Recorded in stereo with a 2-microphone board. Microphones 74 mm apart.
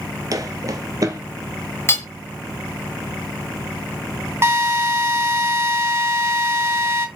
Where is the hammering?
30° left (ahead or behind), 1.9 m.